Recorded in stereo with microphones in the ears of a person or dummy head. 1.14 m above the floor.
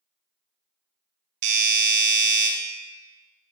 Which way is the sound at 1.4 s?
50° right (ahead or behind).